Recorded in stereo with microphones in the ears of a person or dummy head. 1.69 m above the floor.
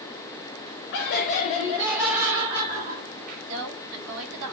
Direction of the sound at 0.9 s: 50° left (ahead or behind).